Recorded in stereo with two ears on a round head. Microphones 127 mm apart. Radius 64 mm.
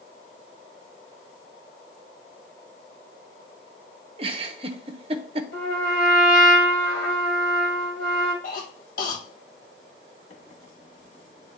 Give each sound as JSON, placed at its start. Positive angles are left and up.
{"t": 4.2, "sound": "a giggle", "side_deg": -40, "distance_m": 0.8}
{"t": 5.5, "sound": "a trumpet", "side_deg": 75, "distance_m": 2.5}
{"t": 8.4, "sound": "a cough", "side_deg": 60, "distance_m": 2.0}
{"t": 10.3, "sound": "a microwave", "side_deg": 40, "distance_m": 1.0}